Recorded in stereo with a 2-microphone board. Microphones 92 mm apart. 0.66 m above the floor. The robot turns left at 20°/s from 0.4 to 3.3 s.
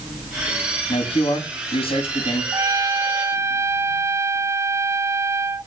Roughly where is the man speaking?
Left.